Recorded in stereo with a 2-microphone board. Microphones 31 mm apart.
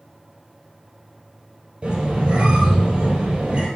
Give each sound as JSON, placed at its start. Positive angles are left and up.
{"t": 1.8, "sound": "a squeak", "side_deg": -40, "distance_m": 1.8}